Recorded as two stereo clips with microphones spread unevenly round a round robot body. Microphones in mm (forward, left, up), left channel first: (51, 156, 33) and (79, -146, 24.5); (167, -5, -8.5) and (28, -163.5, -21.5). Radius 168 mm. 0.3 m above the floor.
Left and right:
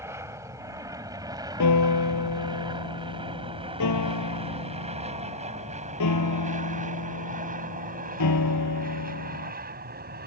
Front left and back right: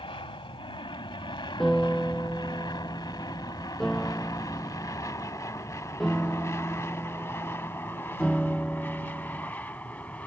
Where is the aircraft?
5° right; by 10.3 s 35° right.